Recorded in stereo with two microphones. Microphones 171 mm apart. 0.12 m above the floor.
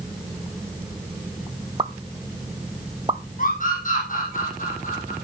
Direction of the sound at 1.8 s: 30° right (ahead or behind).